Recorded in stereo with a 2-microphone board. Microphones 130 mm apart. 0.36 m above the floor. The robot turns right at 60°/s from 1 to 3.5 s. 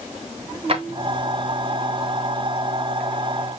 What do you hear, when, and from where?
0.7 s a drawer: 50° right (ahead or behind), 1.3 m